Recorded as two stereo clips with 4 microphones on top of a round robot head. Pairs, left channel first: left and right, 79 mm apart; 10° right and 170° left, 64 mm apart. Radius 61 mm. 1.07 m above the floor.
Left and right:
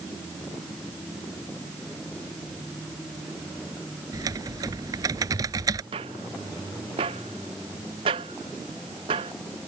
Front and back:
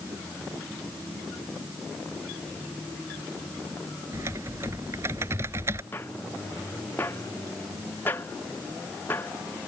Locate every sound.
4.1 s typing on a keyboard: 130° right
5.9 s footsteps: 80° right